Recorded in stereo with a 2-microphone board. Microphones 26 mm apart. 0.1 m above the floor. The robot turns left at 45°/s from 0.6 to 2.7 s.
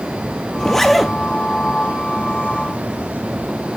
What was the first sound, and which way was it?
A zipper, 20° left (ahead or behind).